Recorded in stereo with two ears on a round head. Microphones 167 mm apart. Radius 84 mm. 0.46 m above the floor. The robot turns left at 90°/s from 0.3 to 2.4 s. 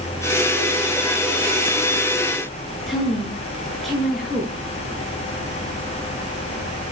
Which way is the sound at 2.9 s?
Centre (ahead or behind).